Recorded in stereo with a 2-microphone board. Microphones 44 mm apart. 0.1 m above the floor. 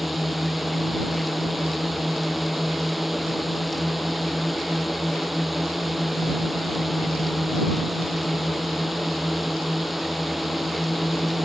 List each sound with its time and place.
0.0 s a drone: 5° right (ahead or behind)